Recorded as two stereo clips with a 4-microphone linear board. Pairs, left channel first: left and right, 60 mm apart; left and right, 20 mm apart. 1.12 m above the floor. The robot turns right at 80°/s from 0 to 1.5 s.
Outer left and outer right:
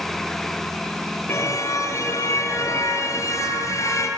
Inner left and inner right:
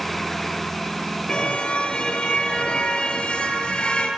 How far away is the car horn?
About 8.5 m.